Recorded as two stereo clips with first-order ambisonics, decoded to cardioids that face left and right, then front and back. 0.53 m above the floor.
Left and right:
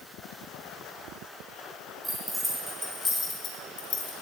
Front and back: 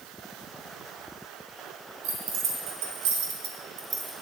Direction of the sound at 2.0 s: 170° right.